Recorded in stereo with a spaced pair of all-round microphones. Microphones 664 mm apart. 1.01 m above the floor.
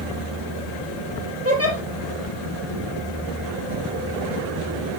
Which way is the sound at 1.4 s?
20° right (ahead or behind).